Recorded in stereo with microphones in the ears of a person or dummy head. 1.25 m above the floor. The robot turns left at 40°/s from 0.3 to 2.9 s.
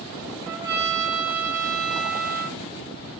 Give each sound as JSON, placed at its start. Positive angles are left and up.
{"t": 0.4, "sound": "a trumpet", "azimuth_deg": -20, "distance_m": 2.5}